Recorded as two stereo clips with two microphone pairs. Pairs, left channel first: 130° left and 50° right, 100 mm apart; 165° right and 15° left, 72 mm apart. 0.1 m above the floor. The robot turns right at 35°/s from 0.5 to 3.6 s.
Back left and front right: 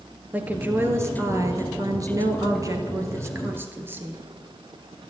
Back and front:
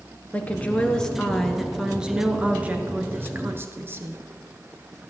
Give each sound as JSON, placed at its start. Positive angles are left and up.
{"t": 0.3, "sound": "a woman speaking", "azimuth_deg": -105, "distance_m": 1.2}